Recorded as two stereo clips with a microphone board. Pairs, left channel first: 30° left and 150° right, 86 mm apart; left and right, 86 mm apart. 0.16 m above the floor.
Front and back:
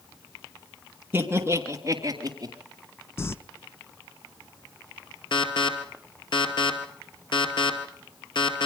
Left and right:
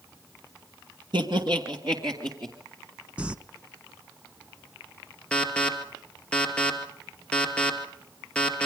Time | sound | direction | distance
1.1 | laughter | 85° right | 2.5 m
3.2 | crumpling | 20° right | 0.5 m
5.3 | an alarm | 15° left | 2.5 m